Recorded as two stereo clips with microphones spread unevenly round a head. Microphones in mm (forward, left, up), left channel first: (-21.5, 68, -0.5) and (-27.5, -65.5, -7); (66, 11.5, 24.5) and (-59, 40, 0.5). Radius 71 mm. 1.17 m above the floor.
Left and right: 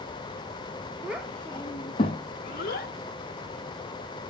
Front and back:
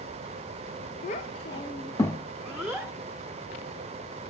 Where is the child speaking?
15° right, 0.6 m; by 2.9 s 80° left, 0.9 m.